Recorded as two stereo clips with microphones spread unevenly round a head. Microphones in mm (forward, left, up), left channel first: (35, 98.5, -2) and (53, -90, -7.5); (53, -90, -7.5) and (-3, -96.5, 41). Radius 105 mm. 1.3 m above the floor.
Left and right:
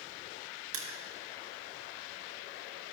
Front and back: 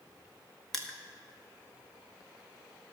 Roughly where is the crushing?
Right.